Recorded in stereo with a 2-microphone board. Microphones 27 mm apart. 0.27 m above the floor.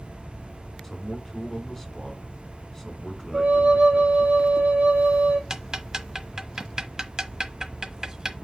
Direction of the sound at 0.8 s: 15° left (ahead or behind).